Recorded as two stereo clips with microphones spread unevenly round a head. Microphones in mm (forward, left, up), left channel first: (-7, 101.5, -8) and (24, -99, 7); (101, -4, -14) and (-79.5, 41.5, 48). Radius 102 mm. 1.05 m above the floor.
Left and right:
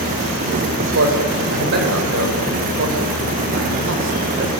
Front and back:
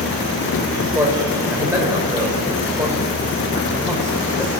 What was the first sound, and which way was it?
A man speaking, 115° right.